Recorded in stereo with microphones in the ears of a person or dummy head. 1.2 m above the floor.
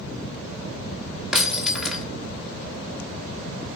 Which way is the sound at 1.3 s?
5° right (ahead or behind).